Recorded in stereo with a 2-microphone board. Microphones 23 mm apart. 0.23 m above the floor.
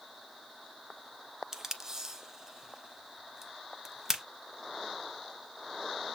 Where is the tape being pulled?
20° right (ahead or behind), 0.6 m.